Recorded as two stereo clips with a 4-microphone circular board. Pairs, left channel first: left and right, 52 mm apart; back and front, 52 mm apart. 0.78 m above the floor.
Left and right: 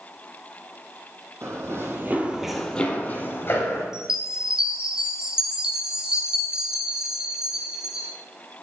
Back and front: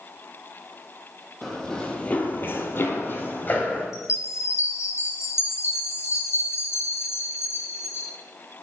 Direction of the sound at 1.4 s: 95° right.